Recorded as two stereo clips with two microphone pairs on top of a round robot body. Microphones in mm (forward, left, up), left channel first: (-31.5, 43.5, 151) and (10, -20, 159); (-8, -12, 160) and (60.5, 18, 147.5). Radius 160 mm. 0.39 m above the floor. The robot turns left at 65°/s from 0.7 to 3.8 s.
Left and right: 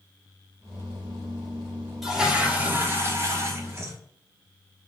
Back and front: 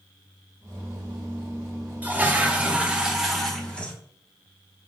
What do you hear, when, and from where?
2.0 s a toilet flushing: 40° left, 1.2 m; by 4.0 s 75° right, 1.2 m